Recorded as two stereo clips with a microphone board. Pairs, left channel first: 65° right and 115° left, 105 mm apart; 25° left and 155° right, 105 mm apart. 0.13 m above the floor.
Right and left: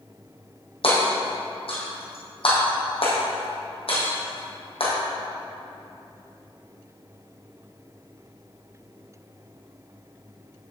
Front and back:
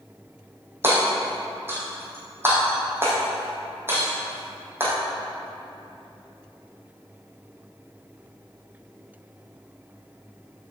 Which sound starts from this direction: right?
Hammering, at 0.8 s.